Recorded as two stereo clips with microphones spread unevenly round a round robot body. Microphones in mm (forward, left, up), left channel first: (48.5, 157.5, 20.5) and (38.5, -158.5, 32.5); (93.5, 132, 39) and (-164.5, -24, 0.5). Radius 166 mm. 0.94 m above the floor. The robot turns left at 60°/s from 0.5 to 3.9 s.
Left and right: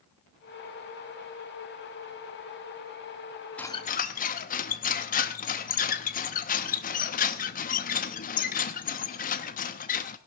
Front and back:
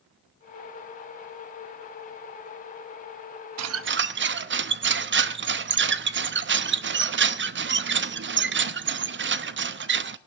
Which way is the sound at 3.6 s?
175° left.